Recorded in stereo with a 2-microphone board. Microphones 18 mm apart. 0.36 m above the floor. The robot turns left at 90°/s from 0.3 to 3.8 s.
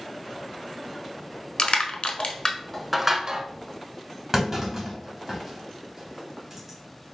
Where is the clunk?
20° right (ahead or behind), 1.5 m.